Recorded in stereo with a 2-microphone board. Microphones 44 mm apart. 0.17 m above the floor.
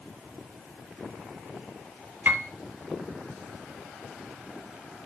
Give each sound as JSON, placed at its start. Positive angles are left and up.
{"t": 2.2, "sound": "a piano", "side_deg": -45, "distance_m": 1.1}